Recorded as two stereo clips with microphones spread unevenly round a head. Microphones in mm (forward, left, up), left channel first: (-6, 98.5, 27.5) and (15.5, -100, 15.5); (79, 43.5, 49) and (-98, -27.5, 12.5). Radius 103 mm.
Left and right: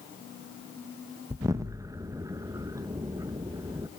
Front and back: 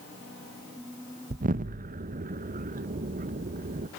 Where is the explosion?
155° right, 1.0 m.